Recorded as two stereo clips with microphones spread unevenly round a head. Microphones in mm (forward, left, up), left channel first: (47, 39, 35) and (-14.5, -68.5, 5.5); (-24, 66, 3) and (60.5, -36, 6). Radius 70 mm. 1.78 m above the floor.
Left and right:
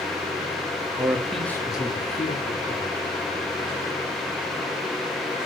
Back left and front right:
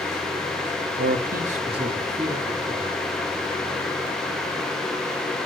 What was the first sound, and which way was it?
A man speaking, 50° right.